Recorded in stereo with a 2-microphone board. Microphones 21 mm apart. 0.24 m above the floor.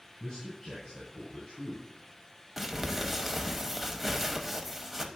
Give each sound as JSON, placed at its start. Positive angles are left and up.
{"t": 0.2, "sound": "a man speaking", "side_deg": 40, "distance_m": 3.0}
{"t": 2.6, "sound": "crumpling", "side_deg": -10, "distance_m": 0.8}